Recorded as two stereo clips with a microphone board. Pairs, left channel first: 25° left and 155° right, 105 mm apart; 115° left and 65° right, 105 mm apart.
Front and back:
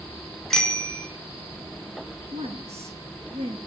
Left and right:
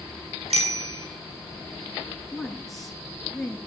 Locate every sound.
0.5 s a bicycle bell: 60° right, 3.5 m
2.3 s a woman speaking: 160° right, 5 m